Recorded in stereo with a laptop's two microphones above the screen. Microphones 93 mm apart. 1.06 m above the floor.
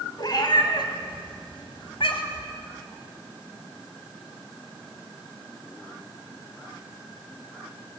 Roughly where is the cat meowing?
Left.